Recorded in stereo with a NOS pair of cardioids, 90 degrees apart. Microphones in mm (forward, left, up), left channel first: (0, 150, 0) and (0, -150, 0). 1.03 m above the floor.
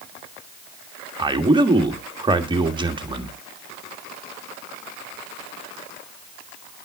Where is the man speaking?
15° right, 1.5 m.